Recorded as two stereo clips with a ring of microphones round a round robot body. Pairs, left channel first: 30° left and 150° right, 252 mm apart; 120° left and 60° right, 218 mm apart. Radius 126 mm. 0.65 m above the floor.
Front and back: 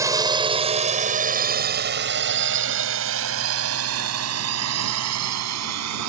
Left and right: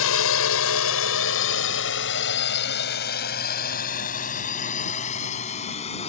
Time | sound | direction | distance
0.0 | a drone | 135° left | ?